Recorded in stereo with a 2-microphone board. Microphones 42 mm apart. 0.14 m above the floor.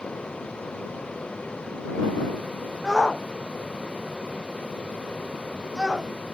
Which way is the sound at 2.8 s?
15° right (ahead or behind).